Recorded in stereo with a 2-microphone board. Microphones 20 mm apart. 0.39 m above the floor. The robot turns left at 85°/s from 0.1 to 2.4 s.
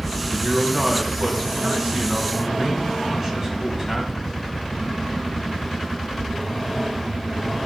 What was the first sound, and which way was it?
A man speaking, 25° left.